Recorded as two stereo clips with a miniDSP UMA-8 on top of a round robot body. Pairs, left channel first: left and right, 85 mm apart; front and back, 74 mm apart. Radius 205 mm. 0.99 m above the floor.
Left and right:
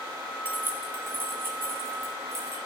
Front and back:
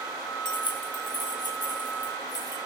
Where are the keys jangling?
20° right, 1.3 m; by 2.6 s 30° right, 3.5 m.